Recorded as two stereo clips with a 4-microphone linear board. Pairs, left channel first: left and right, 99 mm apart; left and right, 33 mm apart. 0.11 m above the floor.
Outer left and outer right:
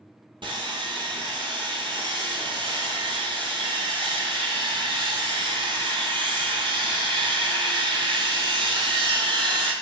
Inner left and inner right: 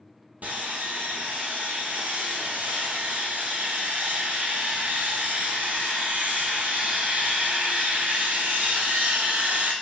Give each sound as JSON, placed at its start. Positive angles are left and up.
{"t": 0.4, "sound": "sawing", "side_deg": -60, "distance_m": 0.8}